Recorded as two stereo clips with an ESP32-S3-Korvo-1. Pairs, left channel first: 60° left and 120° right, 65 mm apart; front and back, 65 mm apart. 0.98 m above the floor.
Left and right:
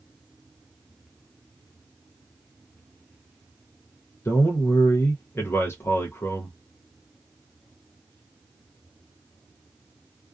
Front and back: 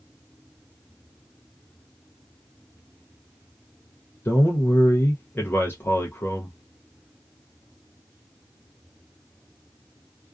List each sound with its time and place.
4.2 s a man speaking: 35° left, 0.6 m